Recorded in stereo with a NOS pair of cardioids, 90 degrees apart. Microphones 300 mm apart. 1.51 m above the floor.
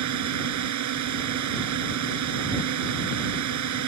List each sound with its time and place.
0.0 s a drone: 70° right